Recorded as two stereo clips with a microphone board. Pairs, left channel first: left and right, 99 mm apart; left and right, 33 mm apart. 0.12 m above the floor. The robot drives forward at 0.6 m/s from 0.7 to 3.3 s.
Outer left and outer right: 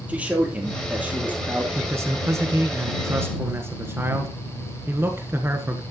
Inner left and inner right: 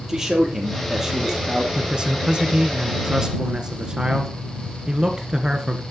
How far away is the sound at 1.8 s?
About 1.1 m.